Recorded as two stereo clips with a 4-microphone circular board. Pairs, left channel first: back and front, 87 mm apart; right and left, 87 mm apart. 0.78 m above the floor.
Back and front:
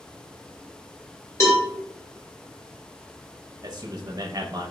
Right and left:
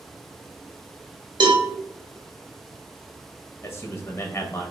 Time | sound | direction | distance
1.4 | a cowbell | 125° left | 1.2 m
3.6 | a man speaking | 35° right | 0.6 m